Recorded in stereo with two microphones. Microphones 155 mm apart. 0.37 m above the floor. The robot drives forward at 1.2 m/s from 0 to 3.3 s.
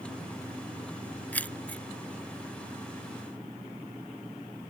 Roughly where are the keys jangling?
Centre.